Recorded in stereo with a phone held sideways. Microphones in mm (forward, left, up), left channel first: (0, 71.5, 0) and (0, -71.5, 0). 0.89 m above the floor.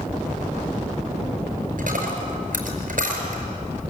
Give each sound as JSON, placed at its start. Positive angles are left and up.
{"t": 1.8, "sound": "a dropped coin", "side_deg": -75, "distance_m": 5.0}